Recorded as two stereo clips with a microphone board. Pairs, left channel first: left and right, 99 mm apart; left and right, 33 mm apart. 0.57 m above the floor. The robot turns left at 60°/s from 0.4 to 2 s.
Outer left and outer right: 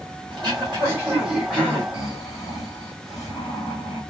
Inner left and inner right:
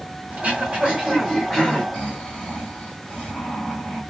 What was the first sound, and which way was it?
Throat clearing, 115° right.